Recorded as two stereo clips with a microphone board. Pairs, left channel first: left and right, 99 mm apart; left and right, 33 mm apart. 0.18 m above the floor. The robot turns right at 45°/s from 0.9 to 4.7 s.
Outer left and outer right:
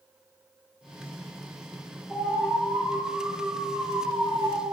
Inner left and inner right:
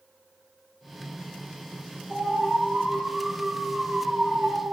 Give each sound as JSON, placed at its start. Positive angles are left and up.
{"t": 2.1, "sound": "an alarm", "azimuth_deg": 165, "distance_m": 2.0}